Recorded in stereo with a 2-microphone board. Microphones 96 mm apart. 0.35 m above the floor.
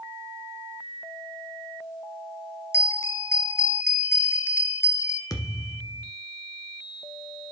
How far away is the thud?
About 1.4 m.